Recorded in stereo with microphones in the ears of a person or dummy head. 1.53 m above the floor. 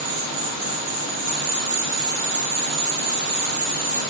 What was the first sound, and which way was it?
An insect, 65° right (ahead or behind).